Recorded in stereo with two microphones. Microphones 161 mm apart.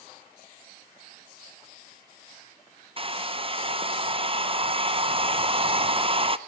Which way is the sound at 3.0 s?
35° right (ahead or behind).